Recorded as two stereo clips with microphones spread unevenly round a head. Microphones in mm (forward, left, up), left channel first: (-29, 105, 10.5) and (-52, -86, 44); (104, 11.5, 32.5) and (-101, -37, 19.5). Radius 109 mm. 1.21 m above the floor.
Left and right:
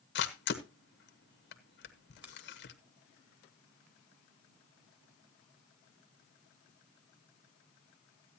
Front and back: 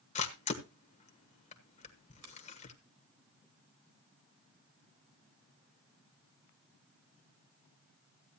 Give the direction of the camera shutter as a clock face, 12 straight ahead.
10 o'clock.